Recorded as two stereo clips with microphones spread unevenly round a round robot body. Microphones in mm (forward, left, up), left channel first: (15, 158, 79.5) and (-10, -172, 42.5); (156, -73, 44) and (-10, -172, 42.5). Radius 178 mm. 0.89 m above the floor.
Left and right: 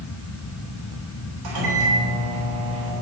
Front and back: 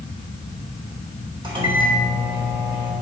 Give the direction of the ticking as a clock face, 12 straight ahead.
No ticking in this recording.